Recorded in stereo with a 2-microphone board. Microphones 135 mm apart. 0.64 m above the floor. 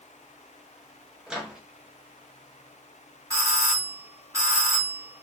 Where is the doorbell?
25° right (ahead or behind), 1.7 m.